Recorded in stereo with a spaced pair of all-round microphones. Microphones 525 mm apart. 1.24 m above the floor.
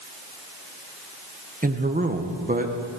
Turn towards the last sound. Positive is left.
turn(degrees=-15)  # may be behind; listen again after turning